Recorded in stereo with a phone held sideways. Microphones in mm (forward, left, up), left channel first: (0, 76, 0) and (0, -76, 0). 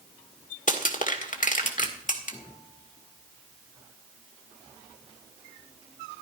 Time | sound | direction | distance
0.7 | crushing | 60° left (ahead or behind) | 1.7 m